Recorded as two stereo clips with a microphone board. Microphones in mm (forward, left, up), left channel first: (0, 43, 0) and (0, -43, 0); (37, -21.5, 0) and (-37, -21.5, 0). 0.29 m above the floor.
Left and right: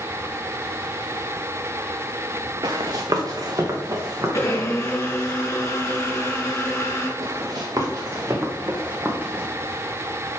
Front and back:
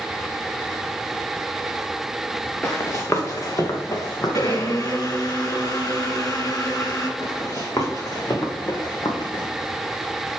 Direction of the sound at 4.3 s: 35° left.